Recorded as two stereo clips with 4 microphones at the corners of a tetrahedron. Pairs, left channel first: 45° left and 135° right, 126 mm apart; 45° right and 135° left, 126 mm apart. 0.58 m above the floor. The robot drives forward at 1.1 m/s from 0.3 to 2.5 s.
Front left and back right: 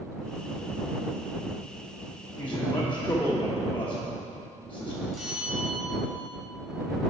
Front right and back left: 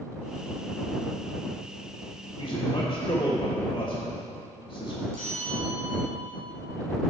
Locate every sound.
2.4 s a man speaking: 20° right, 1.3 m; by 5.0 s 25° right, 1.2 m
5.1 s a bell: 135° left, 2.5 m